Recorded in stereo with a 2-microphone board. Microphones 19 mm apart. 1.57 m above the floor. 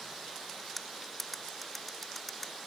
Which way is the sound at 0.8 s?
10° left (ahead or behind).